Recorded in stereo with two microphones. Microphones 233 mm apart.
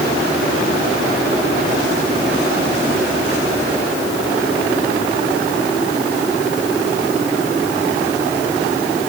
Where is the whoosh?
I don't hear a whoosh.